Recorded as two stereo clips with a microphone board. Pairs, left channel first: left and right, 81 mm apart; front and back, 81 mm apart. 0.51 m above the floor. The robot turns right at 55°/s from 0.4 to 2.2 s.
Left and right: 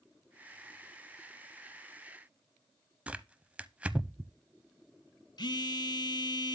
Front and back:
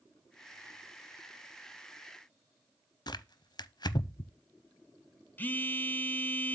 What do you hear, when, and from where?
3.1 s tearing paper: 20° right, 0.5 m
5.4 s a phone buzzing: 65° left, 0.8 m